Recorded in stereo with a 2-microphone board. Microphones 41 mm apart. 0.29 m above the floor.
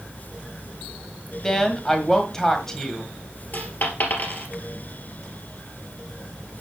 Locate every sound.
1.4 s a woman speaking: 10° left (ahead or behind), 1.8 m
3.5 s a dropped coin: 45° left (ahead or behind), 2.5 m